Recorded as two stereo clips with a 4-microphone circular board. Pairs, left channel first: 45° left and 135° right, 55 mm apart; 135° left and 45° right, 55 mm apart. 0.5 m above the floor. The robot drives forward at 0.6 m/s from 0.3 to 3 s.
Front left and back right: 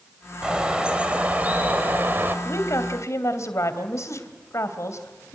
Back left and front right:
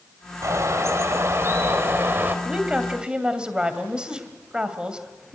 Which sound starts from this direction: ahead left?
A woman speaking, at 2.5 s.